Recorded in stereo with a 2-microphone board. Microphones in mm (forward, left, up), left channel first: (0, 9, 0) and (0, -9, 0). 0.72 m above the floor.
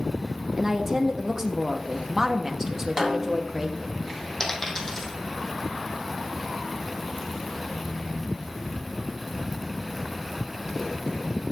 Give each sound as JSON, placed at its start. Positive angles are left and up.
{"t": 0.6, "sound": "a woman speaking", "side_deg": -20, "distance_m": 0.9}
{"t": 3.0, "sound": "a snare drum", "side_deg": -25, "distance_m": 1.6}
{"t": 4.4, "sound": "a dropped coin", "side_deg": 25, "distance_m": 2.5}